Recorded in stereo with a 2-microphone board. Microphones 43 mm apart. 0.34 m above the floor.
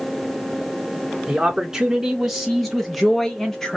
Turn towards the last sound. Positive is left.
turn(degrees=10)  # may be behind; listen again after turning